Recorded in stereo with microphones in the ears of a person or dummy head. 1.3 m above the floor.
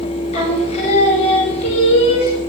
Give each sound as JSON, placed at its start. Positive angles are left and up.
{"t": 0.3, "sound": "singing", "side_deg": 35, "distance_m": 3.0}